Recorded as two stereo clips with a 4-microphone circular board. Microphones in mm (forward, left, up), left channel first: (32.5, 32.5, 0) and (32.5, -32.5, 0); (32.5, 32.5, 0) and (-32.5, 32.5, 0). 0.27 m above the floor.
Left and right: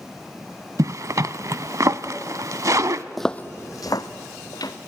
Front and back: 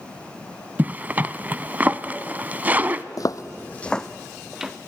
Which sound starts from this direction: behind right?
A zipper, at 0.8 s.